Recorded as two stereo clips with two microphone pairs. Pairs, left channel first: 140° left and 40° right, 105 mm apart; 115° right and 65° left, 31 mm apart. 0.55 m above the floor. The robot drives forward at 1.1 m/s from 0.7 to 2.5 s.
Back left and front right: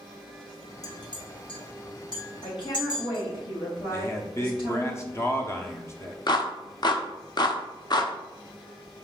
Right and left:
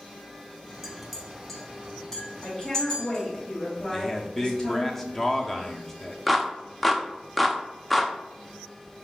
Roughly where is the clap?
Behind left.